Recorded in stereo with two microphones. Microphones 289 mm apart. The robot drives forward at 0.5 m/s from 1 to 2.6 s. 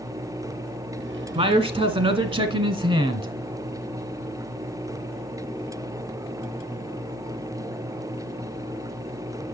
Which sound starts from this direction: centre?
A man speaking, at 1.4 s.